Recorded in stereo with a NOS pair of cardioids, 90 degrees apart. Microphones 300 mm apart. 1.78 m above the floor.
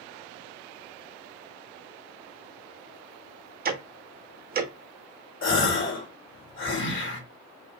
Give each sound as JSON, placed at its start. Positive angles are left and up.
{"t": 3.6, "sound": "ticking", "azimuth_deg": -30, "distance_m": 0.5}
{"t": 5.4, "sound": "a gasp", "azimuth_deg": 45, "distance_m": 1.1}